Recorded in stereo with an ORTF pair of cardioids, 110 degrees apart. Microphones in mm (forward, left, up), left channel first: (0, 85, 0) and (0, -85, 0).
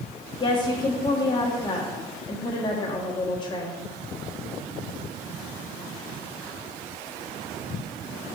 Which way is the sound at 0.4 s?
25° left.